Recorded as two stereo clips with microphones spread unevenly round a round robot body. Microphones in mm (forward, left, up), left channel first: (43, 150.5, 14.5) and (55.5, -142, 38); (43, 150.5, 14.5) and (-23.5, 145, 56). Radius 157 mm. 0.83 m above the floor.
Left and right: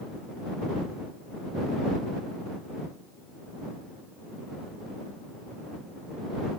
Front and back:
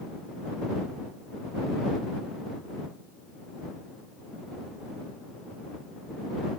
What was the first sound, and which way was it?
Only background noise.